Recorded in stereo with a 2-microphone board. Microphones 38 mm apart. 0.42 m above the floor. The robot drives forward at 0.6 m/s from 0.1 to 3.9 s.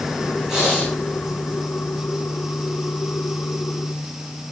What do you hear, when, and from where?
0.5 s breathing: 10° right (ahead or behind), 6.5 m; by 0.9 s 15° right (ahead or behind), 6.5 m